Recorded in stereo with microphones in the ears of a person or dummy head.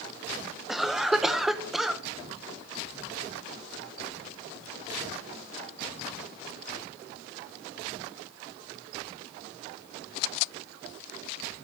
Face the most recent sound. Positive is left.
turn(degrees=-5)  # may be behind; listen again after turning